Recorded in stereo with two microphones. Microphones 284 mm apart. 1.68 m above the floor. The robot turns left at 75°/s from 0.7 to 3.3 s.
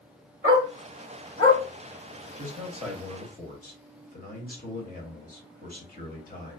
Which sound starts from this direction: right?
A dog barking, at 0.4 s.